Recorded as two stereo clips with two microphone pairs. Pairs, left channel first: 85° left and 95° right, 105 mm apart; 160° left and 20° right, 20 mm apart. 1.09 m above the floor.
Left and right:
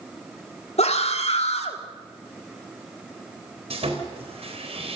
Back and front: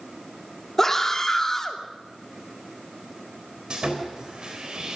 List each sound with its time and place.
0.8 s a scream: 85° left, 2.5 m
3.7 s sawing: 75° right, 4 m